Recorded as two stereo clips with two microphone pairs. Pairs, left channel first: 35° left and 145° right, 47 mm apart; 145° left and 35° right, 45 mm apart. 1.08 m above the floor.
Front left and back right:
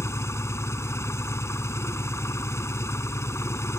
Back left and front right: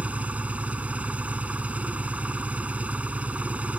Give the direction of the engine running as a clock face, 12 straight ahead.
11 o'clock.